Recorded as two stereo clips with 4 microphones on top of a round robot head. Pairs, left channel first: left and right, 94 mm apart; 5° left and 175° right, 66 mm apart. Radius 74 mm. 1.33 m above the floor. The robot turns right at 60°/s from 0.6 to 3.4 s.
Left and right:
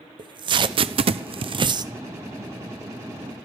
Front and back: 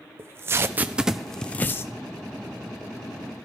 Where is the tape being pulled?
120° right, 0.6 m; by 1.9 s 45° right, 0.6 m.